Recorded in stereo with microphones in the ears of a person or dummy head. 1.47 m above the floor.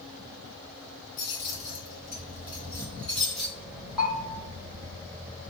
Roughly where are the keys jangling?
Left.